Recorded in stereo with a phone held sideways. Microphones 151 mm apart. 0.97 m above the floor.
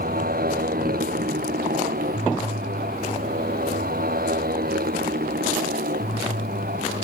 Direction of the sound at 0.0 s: 75° right (ahead or behind).